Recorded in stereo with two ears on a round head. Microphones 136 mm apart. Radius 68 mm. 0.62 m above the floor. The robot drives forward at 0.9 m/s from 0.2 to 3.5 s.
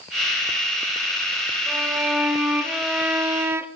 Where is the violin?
5° right (ahead or behind), 1.9 m; by 3.7 s 15° right (ahead or behind), 0.5 m.